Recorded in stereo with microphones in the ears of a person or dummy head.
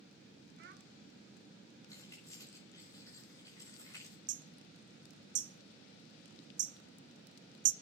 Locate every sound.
0.6 s a child speaking: 65° right (ahead or behind), 2.0 m
1.9 s keys jangling: 20° left (ahead or behind), 6 m
4.3 s hammering: 40° right (ahead or behind), 0.6 m